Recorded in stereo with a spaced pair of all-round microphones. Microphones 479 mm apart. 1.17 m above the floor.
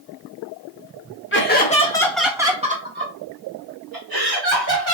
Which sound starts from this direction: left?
Laughter, at 1.3 s.